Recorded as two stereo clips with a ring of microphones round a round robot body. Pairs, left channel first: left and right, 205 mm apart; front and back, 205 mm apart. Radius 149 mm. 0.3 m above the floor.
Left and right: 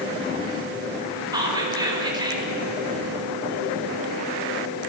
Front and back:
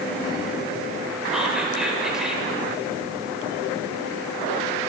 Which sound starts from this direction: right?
Whispering, at 1.3 s.